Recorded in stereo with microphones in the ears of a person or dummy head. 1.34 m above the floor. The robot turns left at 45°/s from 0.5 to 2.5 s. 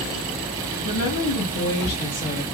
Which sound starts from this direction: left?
A woman speaking, at 0.8 s.